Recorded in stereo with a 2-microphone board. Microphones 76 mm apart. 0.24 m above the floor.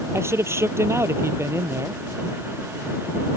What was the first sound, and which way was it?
A man speaking, 35° right (ahead or behind).